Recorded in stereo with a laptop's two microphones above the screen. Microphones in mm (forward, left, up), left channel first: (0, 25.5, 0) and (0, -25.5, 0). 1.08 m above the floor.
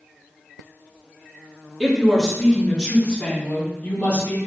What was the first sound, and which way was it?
A woman speaking, centre (ahead or behind).